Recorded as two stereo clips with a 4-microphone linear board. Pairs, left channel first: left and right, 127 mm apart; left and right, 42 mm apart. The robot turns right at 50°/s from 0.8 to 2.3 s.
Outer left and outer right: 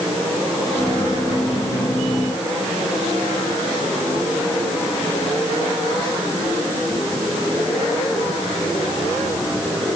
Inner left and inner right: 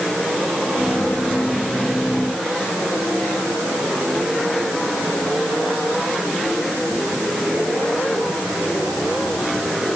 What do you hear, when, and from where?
Only background noise.